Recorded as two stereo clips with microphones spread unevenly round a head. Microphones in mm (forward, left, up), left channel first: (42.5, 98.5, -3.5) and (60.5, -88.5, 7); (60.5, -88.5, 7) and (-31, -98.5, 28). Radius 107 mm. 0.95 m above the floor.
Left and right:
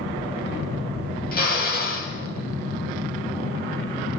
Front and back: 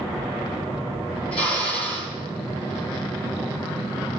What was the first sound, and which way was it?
A drill, 55° left.